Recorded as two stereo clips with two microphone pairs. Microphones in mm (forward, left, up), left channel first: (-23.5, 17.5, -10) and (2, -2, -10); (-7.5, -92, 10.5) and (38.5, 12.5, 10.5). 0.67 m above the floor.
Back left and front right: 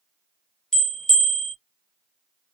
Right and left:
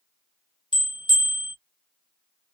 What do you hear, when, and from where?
0.7 s a bell: 150° right, 0.8 m